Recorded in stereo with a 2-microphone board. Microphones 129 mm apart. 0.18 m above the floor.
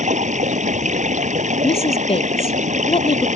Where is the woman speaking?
50° left (ahead or behind).